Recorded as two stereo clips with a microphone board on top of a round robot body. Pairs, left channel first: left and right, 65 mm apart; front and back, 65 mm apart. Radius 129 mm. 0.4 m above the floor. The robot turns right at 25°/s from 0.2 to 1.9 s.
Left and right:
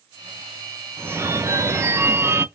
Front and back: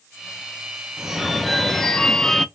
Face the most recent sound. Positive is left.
turn(degrees=-80)